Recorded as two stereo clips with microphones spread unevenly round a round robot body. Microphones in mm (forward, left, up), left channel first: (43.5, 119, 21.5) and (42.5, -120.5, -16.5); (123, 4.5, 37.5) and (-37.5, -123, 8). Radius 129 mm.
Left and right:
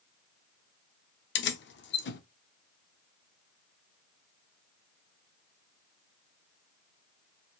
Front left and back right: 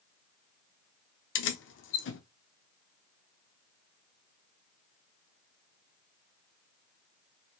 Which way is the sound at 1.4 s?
50° left.